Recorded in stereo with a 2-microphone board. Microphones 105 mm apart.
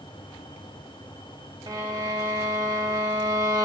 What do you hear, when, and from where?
1.7 s a violin: 35° right (ahead or behind), 0.9 m